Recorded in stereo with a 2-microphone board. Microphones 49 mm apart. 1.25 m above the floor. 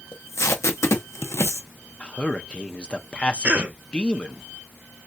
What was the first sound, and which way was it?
Tape being pulled, 70° left (ahead or behind).